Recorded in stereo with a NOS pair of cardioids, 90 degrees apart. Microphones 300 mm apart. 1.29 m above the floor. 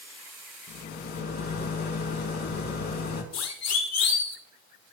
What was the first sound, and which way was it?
A rattle, 65° left.